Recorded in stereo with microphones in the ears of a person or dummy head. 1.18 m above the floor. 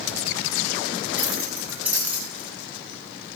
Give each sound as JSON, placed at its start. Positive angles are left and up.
{"t": 1.2, "sound": "keys jangling", "side_deg": -5, "distance_m": 6.0}